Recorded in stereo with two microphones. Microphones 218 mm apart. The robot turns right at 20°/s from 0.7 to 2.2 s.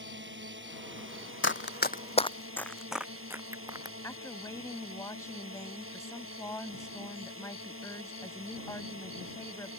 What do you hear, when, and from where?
0.0 s a drone: 120° right; by 9.8 s 90° right
1.4 s running footsteps: 65° left (ahead or behind); by 3.9 s 15° right (ahead or behind)
4.0 s a woman speaking: 15° left (ahead or behind)